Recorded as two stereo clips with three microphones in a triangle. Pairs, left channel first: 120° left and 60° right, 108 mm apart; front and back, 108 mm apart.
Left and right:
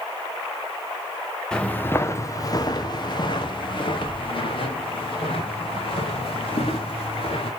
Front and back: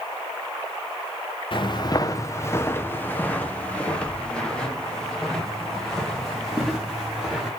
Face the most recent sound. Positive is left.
turn(degrees=90)